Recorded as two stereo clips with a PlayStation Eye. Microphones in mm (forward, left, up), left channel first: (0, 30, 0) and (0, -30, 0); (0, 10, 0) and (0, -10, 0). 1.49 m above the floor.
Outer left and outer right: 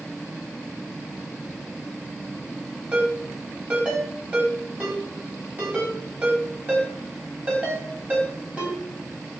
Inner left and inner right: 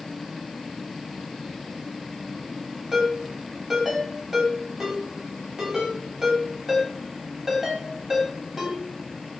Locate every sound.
2.9 s a ringtone: 25° right (ahead or behind), 4 m